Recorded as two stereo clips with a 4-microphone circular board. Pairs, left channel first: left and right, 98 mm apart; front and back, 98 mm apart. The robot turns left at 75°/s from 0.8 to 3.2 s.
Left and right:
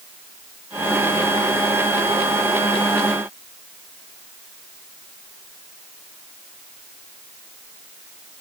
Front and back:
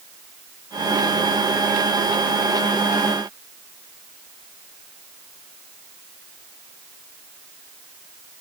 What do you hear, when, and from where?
Only background noise.